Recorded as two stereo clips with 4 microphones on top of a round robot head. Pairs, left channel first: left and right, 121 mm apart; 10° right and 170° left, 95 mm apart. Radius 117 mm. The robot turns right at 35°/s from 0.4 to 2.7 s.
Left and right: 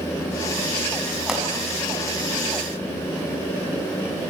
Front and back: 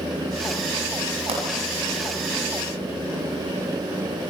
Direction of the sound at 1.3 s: 175° right.